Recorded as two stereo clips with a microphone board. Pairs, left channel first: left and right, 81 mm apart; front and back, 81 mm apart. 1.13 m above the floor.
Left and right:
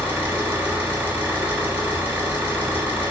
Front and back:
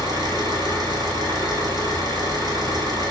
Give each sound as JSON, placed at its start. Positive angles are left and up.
{"t": 0.0, "sound": "an engine running", "azimuth_deg": -160, "distance_m": 2.5}